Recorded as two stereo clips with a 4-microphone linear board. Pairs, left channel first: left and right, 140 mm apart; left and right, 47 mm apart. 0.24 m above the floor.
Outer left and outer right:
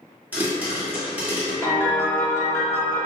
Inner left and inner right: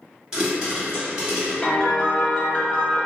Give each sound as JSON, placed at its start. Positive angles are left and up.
{"t": 0.3, "sound": "a pop", "side_deg": -15, "distance_m": 1.0}
{"t": 1.6, "sound": "a piano", "side_deg": 20, "distance_m": 0.7}